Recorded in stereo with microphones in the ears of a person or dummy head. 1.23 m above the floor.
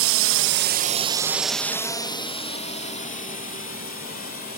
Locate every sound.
0.0 s a drone: 70° right (ahead or behind); by 4.6 s 45° left (ahead or behind)